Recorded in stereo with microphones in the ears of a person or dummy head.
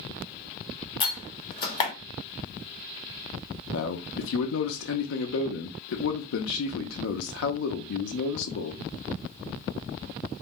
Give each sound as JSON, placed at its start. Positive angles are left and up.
{"t": 1.0, "sound": "a door slam", "side_deg": 25, "distance_m": 1.0}
{"t": 3.7, "sound": "a man speaking", "side_deg": 75, "distance_m": 0.5}